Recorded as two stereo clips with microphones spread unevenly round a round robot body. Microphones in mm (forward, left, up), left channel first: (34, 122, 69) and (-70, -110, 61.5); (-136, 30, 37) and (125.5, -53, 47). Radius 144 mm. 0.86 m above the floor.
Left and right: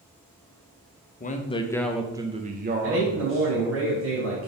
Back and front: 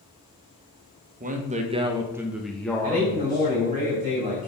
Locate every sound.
1.2 s a man speaking: 30° left, 0.9 m; by 3.8 s 130° right, 1.3 m
2.8 s a man speaking: 90° right, 3 m